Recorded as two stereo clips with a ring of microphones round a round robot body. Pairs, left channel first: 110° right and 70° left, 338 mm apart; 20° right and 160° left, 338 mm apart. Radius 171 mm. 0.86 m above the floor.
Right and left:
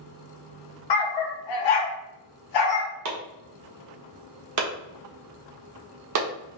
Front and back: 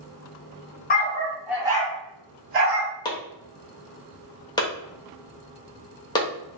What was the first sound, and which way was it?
A dog barking, 90° right.